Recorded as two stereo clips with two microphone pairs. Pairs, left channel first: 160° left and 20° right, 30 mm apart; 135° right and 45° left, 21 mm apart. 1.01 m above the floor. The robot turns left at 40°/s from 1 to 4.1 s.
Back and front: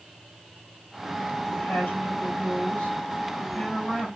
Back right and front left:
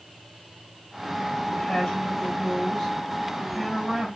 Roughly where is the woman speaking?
Behind.